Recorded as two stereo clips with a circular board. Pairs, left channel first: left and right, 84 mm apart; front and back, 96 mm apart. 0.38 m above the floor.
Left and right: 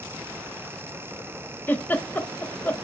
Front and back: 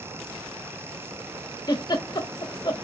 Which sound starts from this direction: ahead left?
A giggle, at 1.7 s.